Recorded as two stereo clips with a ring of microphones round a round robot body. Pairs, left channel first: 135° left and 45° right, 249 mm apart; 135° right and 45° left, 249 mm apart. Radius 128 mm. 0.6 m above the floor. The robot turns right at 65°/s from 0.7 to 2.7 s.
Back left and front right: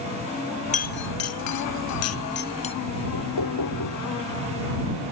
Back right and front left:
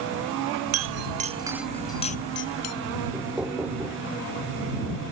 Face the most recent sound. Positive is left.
turn(degrees=130)